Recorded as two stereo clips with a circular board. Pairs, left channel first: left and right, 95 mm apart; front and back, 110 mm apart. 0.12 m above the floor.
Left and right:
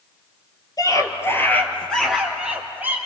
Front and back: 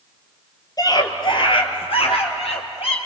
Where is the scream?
50° left, 3 m; by 3.0 s 20° right, 3.5 m.